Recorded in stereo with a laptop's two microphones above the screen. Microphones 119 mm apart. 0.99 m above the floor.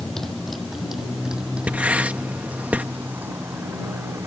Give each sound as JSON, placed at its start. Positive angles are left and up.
{"t": 0.0, "sound": "a motorcycle", "side_deg": 5}
{"t": 1.7, "sound": "writing", "side_deg": -15}